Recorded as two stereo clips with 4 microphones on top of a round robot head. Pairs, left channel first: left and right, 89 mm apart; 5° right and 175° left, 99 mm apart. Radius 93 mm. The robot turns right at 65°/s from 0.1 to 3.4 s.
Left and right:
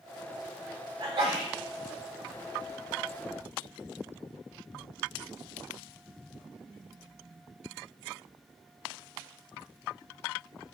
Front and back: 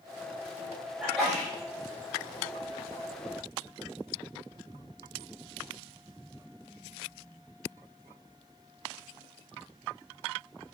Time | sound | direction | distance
1.0 | a sneeze | 110° right | 2.5 m